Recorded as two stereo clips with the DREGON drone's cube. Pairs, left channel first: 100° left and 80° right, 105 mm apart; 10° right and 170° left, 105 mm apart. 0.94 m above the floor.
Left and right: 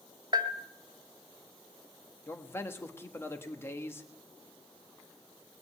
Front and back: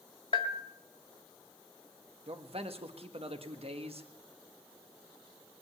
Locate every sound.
0.3 s a bell: 30° right, 1.4 m
2.3 s a man speaking: 165° left, 1.2 m